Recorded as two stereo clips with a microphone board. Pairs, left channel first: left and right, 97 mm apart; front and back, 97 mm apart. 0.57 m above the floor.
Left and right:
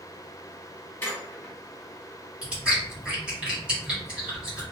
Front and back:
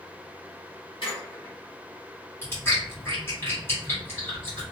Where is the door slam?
No door slam in this recording.